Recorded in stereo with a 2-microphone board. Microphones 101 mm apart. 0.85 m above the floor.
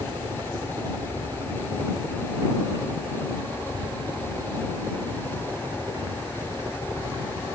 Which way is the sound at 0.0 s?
45° right (ahead or behind).